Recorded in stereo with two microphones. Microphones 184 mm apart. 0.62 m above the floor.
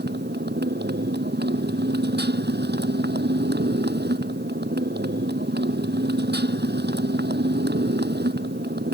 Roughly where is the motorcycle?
Right.